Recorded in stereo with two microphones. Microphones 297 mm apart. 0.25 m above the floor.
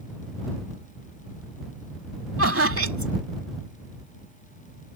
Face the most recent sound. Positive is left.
turn(degrees=-50)  # may be behind; listen again after turning